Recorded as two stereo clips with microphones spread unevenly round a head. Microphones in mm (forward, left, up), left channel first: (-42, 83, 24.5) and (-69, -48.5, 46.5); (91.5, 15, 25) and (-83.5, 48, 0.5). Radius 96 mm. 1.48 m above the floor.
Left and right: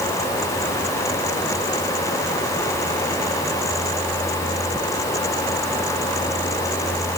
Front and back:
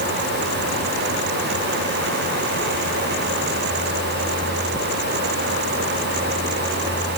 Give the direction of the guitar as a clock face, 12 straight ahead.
I don't hear a guitar.